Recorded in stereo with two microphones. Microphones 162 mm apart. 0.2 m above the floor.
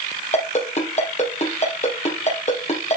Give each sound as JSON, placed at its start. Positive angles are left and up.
{"t": 0.3, "sound": "a ringtone", "side_deg": 45, "distance_m": 3.0}